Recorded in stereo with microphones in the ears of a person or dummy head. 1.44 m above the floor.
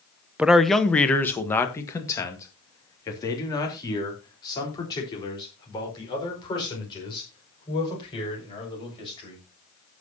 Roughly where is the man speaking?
Centre.